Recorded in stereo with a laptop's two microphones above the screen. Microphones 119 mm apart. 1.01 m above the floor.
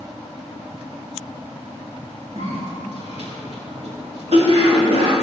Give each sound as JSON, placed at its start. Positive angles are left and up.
{"t": 2.4, "sound": "a cough", "side_deg": -60, "distance_m": 2.5}